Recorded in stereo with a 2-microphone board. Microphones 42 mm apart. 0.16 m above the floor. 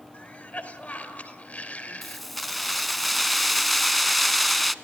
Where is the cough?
40° left (ahead or behind), 3.5 m.